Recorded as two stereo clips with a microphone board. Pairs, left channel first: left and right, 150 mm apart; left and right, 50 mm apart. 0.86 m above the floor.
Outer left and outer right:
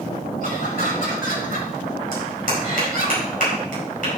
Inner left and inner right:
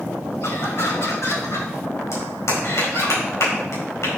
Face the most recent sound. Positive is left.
turn(degrees=65)  # may be behind; listen again after turning